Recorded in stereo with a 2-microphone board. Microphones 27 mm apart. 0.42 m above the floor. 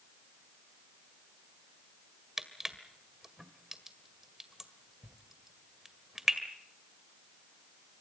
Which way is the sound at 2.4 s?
15° right (ahead or behind).